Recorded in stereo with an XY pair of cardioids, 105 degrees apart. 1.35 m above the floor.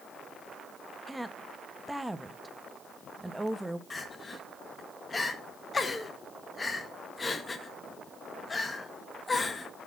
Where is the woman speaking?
10° right, 1.1 m.